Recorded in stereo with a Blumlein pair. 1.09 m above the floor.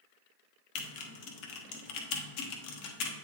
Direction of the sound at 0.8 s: 40° left.